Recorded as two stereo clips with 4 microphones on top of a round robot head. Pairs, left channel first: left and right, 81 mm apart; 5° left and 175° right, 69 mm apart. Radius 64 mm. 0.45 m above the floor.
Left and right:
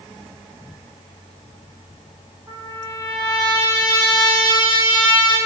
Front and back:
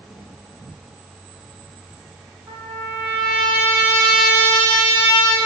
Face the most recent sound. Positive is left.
turn(degrees=-140)